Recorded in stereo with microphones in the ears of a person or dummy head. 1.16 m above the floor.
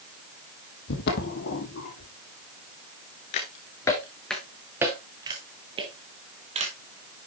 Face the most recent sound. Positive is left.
turn(degrees=-35)  # may be behind; listen again after turning